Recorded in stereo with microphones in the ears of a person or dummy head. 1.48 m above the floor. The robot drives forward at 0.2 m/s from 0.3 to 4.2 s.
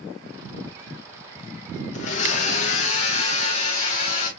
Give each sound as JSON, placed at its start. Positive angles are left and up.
{"t": 1.9, "sound": "a blender", "side_deg": 45, "distance_m": 1.0}